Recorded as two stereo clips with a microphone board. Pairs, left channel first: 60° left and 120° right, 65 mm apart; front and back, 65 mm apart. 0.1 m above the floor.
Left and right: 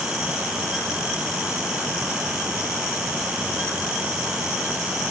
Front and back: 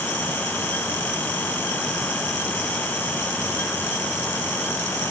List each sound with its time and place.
Only background noise.